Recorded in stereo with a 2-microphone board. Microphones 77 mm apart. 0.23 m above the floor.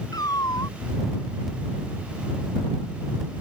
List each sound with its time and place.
0.1 s a cat meowing: 60° left (ahead or behind)